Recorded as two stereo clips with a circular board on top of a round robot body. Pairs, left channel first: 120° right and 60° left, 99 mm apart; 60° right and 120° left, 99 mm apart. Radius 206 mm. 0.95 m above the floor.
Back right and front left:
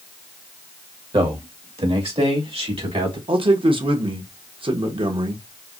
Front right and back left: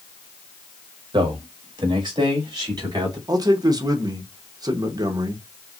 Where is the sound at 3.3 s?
75° left, 1.1 m.